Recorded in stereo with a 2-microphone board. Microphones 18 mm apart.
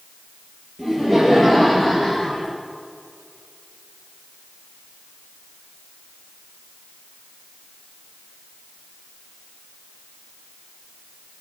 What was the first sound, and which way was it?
Laughter, 20° left (ahead or behind).